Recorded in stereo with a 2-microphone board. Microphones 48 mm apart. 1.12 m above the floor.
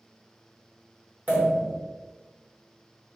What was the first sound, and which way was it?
A pop, 40° right (ahead or behind).